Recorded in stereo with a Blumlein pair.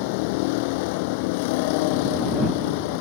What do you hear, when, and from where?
0.0 s a vehicle: 45° left